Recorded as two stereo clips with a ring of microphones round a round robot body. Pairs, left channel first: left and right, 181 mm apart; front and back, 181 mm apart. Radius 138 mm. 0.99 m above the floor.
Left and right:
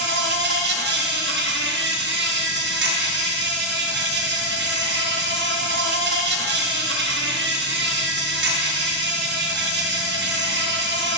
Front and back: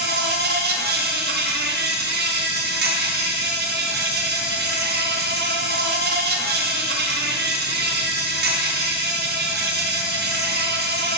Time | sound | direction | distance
0.0 | an insect | 135° right | 0.9 m